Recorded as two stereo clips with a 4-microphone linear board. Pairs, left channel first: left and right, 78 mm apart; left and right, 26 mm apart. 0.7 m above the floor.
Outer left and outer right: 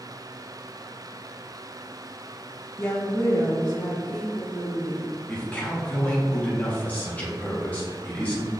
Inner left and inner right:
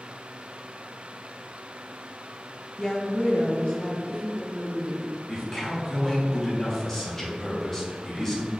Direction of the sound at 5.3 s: 20° left (ahead or behind).